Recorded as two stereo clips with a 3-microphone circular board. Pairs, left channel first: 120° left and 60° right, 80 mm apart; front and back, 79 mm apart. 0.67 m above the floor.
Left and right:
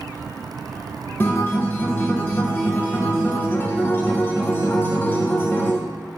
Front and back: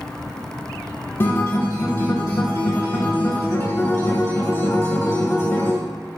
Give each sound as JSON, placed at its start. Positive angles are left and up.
{"t": 1.2, "sound": "a guitar", "azimuth_deg": 60, "distance_m": 0.5}